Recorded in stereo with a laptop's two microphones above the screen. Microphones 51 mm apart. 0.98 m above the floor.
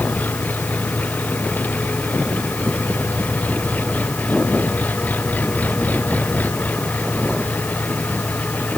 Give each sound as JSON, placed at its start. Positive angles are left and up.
{"t": 0.0, "sound": "an engine running", "side_deg": 35}